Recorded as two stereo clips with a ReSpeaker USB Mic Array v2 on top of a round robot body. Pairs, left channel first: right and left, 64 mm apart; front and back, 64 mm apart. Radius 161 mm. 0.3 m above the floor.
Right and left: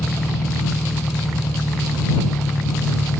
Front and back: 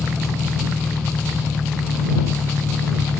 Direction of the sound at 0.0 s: 70° right.